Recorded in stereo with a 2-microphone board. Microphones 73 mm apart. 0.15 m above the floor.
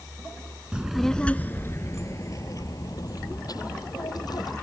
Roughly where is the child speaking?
Centre.